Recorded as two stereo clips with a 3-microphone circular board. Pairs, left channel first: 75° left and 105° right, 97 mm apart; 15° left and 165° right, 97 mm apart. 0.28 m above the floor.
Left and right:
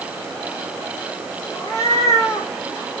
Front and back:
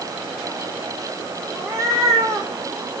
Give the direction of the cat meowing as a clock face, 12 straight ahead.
8 o'clock.